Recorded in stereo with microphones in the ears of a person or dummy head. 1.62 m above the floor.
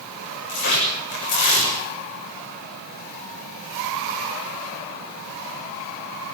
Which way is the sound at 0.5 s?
50° left (ahead or behind).